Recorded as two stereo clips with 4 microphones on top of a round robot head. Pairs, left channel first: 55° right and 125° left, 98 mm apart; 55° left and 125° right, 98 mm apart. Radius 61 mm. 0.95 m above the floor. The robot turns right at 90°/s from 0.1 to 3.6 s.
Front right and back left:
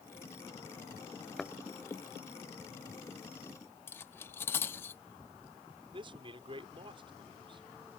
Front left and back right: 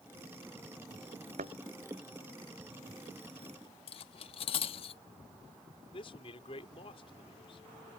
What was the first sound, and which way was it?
A thud, 140° right.